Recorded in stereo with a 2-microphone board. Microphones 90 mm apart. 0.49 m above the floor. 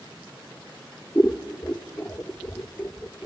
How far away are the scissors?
About 1.0 m.